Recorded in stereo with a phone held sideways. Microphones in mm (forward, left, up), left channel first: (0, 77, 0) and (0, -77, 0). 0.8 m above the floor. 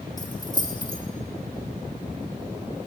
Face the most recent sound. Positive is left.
turn(degrees=25)  # may be behind; listen again after turning